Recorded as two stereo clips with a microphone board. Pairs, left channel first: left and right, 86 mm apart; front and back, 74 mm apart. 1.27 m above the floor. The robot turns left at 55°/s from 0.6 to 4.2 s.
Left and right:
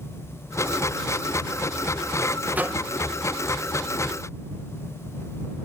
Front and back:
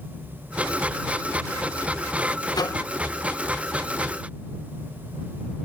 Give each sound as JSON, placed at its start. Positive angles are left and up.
{"t": 2.5, "sound": "a microwave", "azimuth_deg": -20}